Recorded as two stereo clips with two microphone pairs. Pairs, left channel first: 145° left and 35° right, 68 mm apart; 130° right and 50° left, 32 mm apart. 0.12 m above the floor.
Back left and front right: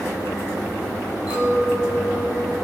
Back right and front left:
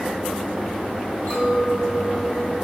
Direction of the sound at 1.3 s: 100° right.